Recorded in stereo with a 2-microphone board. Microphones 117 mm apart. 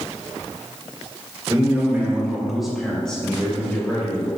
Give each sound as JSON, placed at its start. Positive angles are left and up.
{"t": 1.5, "sound": "a man speaking", "side_deg": -25, "distance_m": 2.0}